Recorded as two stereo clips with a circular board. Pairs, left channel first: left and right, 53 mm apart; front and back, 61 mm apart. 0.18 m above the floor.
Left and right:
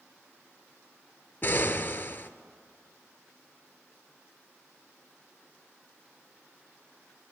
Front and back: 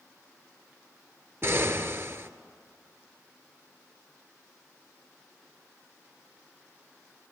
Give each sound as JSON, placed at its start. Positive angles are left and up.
{"t": 1.4, "sound": "an explosion", "azimuth_deg": 135, "distance_m": 0.5}